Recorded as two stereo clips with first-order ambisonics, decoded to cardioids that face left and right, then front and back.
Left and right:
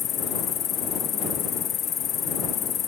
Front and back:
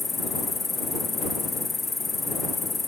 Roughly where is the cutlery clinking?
I don't hear cutlery clinking.